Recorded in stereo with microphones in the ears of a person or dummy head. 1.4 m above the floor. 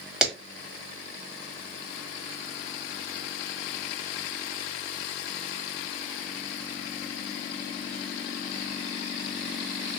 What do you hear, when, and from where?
0.2 s a clap: 5° right (ahead or behind), 1.5 m